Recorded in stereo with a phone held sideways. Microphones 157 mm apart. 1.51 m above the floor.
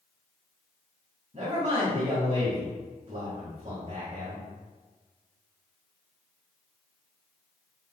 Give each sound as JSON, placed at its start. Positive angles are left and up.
{"t": 1.3, "sound": "a man speaking", "side_deg": -45, "distance_m": 1.9}